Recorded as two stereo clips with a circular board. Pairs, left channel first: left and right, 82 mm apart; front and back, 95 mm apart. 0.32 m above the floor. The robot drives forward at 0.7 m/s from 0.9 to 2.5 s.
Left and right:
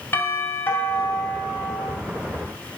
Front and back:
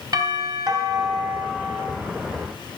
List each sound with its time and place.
0.1 s a doorbell: 145° left, 2 m; by 1.9 s 155° left, 2.5 m